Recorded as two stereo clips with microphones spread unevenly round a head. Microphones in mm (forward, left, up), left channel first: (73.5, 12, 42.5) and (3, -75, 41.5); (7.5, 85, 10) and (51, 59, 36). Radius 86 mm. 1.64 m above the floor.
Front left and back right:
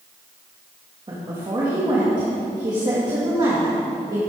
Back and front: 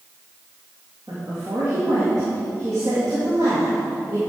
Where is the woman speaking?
75° right, 2.5 m.